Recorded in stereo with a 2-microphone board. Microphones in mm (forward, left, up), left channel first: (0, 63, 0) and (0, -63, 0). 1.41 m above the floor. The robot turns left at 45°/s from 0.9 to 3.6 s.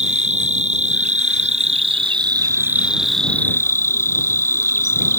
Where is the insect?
80° right; by 5.2 s 160° left.